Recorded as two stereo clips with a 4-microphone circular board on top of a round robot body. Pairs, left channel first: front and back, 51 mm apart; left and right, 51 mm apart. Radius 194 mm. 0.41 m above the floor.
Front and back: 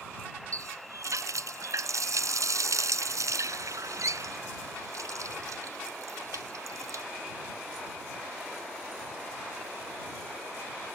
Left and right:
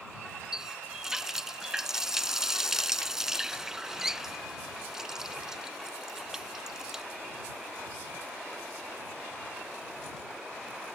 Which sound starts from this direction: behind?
A running tap, at 0.5 s.